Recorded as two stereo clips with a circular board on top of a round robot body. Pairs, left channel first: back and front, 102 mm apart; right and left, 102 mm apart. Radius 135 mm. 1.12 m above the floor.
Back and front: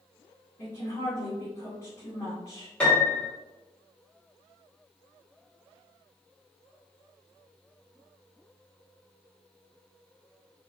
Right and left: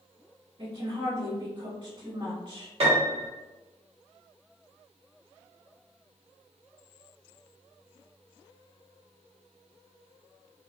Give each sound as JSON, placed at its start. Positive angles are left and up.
{"t": 0.6, "sound": "a woman speaking", "azimuth_deg": 125, "distance_m": 1.6}
{"t": 2.8, "sound": "a piano", "azimuth_deg": 100, "distance_m": 1.0}